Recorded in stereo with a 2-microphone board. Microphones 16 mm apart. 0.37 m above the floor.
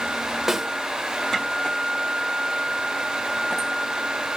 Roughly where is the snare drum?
Centre.